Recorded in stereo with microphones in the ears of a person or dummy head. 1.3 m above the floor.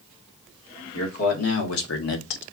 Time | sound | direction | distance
0.9 | a man speaking | 80° left | 1.8 m